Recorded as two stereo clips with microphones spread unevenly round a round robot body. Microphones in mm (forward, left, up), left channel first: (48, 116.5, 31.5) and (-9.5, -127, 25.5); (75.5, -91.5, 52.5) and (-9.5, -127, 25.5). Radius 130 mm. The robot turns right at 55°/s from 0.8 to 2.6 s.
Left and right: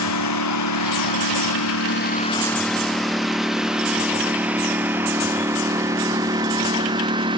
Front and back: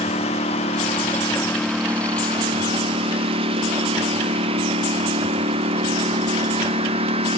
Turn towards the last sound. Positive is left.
turn(degrees=-175)